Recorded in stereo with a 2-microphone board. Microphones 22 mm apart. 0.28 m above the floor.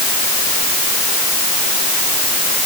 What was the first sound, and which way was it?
Only background noise.